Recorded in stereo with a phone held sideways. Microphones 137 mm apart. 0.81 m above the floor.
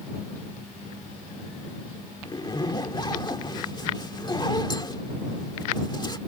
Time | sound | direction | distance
2.2 | a zipper | 30° left (ahead or behind) | ?